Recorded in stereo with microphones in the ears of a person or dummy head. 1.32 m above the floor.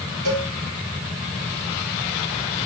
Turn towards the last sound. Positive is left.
turn(degrees=-55)  # may be behind; listen again after turning